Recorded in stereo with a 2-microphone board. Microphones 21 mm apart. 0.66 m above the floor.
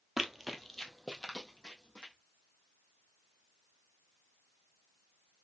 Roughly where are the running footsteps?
Centre.